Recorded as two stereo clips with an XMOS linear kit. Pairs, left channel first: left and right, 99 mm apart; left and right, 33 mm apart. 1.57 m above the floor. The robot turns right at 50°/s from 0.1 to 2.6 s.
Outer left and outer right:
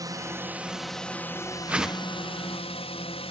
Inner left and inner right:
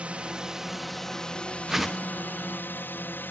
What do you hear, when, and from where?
0.0 s a drone: 40° right; by 3.3 s 85° left
1.7 s a whoosh: 15° right (ahead or behind); by 2.1 s 10° left (ahead or behind)